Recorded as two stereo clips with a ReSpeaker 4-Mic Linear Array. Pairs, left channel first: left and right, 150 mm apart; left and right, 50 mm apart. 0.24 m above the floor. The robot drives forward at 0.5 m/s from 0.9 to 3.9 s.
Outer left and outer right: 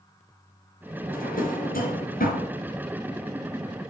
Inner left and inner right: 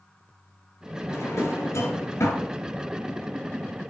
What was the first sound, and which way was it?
A drawer, 70° left (ahead or behind).